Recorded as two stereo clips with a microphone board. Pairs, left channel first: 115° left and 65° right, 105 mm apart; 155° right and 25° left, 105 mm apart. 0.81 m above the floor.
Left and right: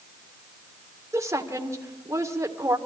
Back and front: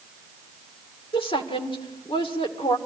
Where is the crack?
I don't hear a crack.